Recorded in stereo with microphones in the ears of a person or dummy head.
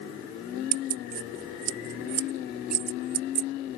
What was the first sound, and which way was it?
Keys jangling, 50° right (ahead or behind).